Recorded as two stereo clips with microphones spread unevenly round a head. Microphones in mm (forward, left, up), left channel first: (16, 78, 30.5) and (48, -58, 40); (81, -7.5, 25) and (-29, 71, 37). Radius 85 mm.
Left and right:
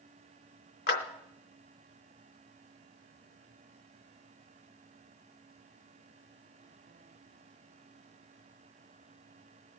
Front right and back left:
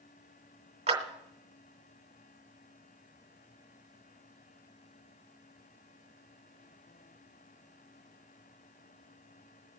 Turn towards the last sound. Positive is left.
turn(degrees=105)